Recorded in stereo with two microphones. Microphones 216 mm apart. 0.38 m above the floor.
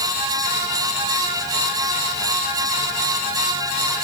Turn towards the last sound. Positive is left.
No sound to turn to.